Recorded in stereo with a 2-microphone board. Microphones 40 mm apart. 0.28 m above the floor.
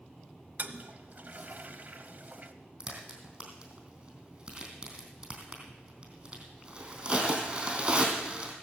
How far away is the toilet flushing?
About 1.0 m.